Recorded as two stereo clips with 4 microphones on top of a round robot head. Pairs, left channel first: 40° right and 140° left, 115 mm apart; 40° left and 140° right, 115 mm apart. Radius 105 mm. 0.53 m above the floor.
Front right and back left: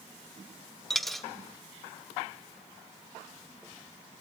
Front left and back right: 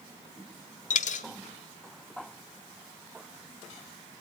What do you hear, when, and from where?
0.9 s a dropped coin: 50° left, 0.8 m